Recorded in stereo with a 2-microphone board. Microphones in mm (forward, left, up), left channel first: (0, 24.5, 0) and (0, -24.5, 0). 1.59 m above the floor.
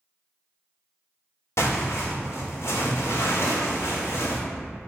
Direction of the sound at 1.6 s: 65° left (ahead or behind).